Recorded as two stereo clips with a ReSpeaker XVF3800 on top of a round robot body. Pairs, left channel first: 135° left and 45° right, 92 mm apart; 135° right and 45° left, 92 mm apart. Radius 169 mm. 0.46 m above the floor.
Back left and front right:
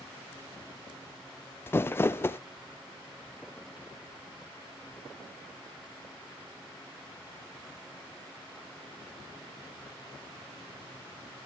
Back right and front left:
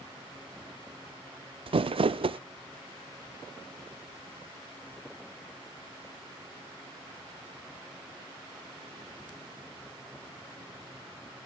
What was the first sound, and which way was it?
Crumpling, 70° left.